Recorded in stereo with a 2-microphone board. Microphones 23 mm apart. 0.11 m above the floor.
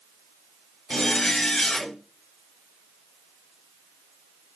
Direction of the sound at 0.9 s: 30° left (ahead or behind).